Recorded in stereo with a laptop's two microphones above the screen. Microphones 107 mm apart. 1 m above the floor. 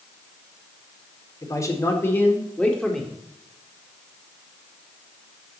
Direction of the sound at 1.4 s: 35° left (ahead or behind).